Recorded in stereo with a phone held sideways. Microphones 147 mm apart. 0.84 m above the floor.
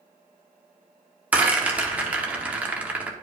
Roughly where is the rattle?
Centre.